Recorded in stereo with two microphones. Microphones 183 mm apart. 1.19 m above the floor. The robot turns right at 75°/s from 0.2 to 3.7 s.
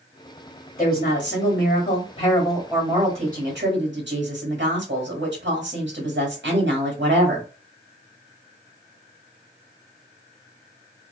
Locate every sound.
0.8 s a woman speaking: 40° left, 1.9 m; by 7.5 s 100° right, 1.9 m